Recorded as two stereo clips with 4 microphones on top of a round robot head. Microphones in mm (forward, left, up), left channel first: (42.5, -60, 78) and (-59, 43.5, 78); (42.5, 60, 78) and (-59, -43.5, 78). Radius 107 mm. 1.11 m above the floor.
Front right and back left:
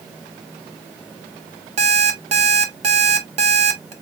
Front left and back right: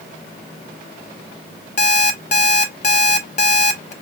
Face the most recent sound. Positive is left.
turn(degrees=85)